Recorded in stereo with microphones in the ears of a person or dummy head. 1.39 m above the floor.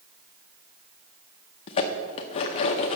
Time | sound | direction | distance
1.7 | dishes clattering | 35° left (ahead or behind) | 0.8 m